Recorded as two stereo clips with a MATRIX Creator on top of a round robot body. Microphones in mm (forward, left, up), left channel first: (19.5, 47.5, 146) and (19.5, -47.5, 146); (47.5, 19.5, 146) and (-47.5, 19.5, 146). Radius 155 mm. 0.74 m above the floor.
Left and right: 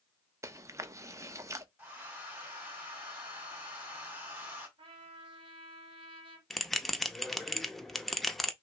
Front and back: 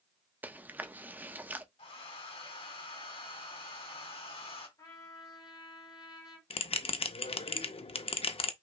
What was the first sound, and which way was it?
Chewing, 120° right.